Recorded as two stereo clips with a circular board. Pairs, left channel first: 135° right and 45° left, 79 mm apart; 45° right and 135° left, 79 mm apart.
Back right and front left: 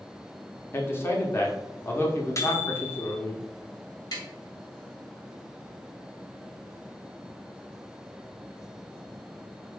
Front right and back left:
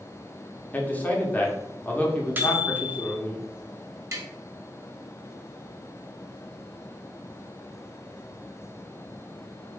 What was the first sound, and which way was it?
A man speaking, 100° right.